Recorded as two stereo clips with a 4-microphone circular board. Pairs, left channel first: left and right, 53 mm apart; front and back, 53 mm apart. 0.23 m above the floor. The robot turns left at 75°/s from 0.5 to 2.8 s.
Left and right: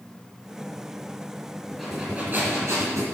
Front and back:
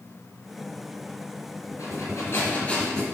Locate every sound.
1.7 s breathing: 5° left, 3.5 m; by 3.0 s 80° right, 3.5 m